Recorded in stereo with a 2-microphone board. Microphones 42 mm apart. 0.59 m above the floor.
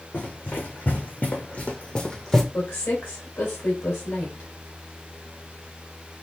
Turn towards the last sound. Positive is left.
turn(degrees=65)  # may be behind; listen again after turning